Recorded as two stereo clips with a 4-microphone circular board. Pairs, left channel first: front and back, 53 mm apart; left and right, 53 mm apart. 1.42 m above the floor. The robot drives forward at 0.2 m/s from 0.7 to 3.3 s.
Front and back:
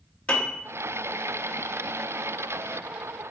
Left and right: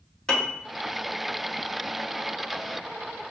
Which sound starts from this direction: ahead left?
A piano, at 0.3 s.